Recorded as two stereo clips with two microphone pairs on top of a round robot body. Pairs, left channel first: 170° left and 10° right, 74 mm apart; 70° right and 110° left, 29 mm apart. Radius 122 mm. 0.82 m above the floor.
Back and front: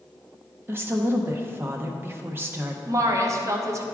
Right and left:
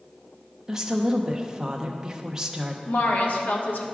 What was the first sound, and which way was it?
A woman speaking, 50° left.